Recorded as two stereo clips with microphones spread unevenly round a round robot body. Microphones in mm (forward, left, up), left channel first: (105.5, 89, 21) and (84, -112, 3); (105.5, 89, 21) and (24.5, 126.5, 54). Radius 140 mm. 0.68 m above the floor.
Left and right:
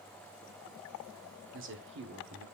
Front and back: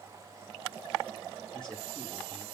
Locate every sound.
1.5 s a man speaking: 100° right, 1.6 m